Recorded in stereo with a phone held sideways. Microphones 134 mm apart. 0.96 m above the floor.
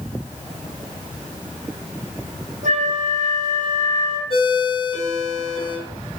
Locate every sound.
2.6 s a flute: 75° right (ahead or behind), 2 m
4.3 s a ringtone: 45° left (ahead or behind), 4.5 m